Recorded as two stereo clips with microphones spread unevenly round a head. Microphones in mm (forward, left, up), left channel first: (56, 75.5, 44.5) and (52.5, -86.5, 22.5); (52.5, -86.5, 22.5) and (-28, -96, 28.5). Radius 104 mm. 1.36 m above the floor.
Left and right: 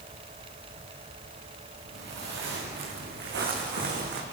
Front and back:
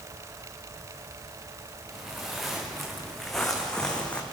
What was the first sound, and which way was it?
Footsteps, 90° right.